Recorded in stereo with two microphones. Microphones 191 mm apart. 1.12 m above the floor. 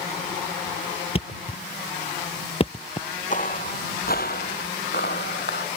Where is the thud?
30° left (ahead or behind).